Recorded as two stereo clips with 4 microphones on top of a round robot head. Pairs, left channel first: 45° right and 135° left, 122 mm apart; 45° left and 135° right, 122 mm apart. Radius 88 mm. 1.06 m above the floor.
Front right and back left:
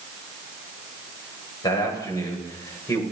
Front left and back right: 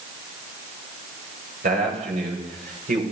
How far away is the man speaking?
About 7 m.